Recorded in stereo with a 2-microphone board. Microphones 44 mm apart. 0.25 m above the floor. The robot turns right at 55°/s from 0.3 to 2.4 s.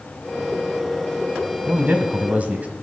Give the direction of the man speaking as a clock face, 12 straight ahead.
3 o'clock.